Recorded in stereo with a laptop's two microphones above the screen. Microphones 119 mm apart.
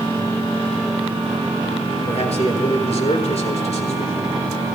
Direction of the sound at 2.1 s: 65° left (ahead or behind).